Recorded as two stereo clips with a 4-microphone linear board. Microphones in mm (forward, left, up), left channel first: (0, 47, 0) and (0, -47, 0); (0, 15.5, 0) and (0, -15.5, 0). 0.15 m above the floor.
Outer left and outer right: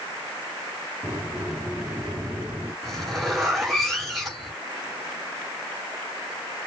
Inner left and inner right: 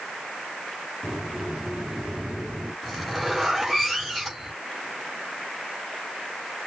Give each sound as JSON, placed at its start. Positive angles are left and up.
{"t": 1.0, "sound": "a sliding door", "side_deg": -10, "distance_m": 3.5}
{"t": 2.8, "sound": "a zipper", "side_deg": 5, "distance_m": 3.5}